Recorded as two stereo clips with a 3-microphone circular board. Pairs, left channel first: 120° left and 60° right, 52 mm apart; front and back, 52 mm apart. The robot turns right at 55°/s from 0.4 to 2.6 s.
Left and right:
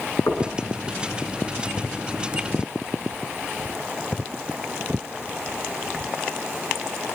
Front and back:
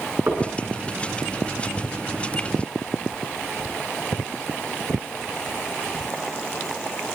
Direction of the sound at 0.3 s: 130° left.